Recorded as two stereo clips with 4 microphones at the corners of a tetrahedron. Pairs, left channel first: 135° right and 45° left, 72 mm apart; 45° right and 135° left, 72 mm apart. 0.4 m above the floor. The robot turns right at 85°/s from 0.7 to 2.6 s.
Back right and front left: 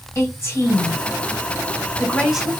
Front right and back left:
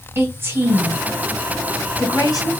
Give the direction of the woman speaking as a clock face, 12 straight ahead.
6 o'clock.